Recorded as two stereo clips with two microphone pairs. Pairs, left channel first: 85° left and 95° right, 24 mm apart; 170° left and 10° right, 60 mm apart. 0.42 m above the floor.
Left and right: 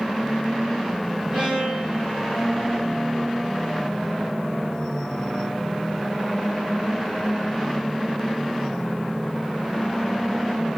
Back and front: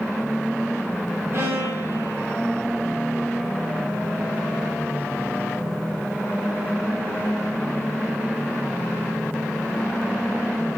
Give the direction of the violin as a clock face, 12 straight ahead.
2 o'clock.